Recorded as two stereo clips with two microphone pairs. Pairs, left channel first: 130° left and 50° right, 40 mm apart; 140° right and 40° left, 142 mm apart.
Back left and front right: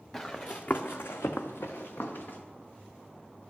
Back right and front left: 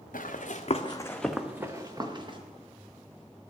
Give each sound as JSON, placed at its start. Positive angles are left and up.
{"t": 0.1, "sound": "running footsteps", "azimuth_deg": -155, "distance_m": 1.1}